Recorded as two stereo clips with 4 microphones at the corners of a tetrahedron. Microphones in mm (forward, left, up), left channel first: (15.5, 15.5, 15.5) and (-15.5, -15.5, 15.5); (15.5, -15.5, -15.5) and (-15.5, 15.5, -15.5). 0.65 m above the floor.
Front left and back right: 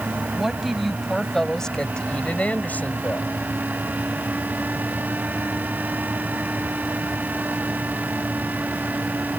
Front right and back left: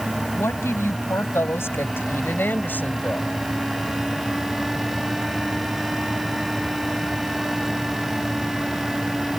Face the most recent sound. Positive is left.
turn(degrees=10)